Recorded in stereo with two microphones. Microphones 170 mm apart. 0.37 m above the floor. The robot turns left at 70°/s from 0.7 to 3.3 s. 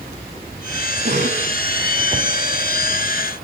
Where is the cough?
55° right, 2.5 m; by 1.5 s 85° right, 2.5 m.